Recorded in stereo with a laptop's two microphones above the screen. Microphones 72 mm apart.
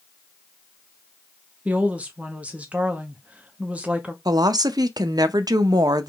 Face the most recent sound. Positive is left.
turn(degrees=-70)  # may be behind; listen again after turning